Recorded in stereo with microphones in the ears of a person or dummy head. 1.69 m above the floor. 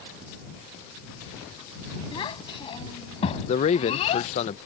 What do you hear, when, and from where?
2.1 s a child speaking: 25° left (ahead or behind); by 4.3 s 35° left (ahead or behind)
3.5 s a man speaking: 35° left (ahead or behind)